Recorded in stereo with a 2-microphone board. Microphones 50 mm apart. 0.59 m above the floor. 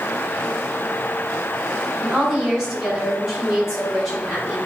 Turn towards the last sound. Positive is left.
turn(degrees=-10)  # may be behind; listen again after turning